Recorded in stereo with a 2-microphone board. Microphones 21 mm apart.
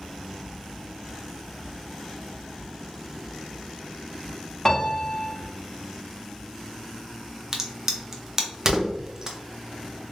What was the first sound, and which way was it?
A piano, 20° left (ahead or behind).